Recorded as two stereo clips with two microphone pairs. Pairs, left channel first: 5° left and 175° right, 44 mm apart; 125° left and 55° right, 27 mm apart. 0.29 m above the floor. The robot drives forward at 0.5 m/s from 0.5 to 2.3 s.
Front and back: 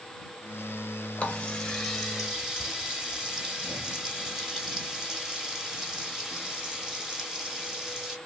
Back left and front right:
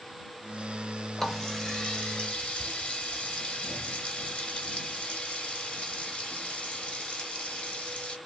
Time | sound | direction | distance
1.2 | a running tap | 55° left | 0.9 m